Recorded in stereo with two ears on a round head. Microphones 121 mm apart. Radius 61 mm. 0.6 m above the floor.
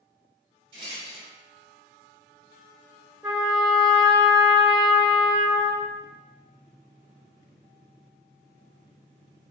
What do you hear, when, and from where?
0.7 s a rattle: 40° right (ahead or behind), 1.7 m
3.2 s a trumpet: 10° right (ahead or behind), 1.7 m